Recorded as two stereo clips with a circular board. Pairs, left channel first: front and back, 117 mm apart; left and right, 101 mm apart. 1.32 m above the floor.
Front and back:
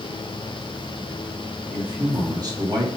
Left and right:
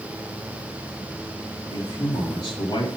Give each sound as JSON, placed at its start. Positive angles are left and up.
{"t": 1.7, "sound": "a man speaking", "azimuth_deg": 125, "distance_m": 3.0}